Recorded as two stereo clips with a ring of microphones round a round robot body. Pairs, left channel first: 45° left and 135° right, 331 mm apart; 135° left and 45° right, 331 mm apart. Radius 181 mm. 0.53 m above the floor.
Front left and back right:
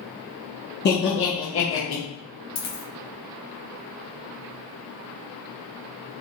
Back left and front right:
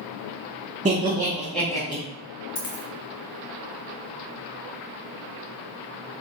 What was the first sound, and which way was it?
Laughter, 10° left.